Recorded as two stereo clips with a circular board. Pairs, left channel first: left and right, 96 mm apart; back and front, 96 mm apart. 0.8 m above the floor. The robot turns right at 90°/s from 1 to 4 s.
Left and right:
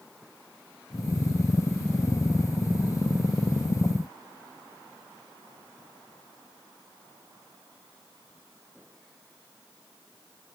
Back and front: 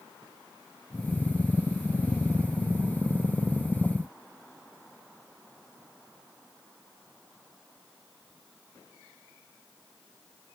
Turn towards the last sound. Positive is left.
No sound to turn to.